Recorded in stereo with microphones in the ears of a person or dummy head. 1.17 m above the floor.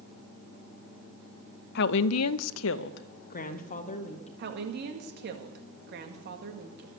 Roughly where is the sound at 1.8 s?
Left.